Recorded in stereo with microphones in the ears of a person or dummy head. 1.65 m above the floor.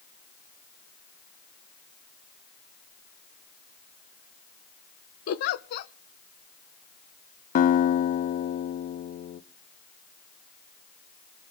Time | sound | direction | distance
5.3 | a giggle | 55° left (ahead or behind) | 0.9 m
7.5 | a guitar | 45° left (ahead or behind) | 0.7 m